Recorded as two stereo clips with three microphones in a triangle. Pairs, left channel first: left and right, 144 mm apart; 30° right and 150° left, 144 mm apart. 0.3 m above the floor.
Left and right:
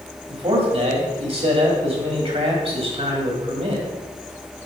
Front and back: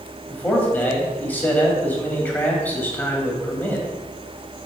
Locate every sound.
0.3 s a man speaking: 100° right, 1.8 m